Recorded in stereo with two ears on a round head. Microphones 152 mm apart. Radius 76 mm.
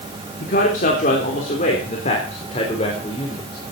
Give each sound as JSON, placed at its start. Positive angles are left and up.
{"t": 0.4, "sound": "a man speaking", "side_deg": 55, "distance_m": 3.0}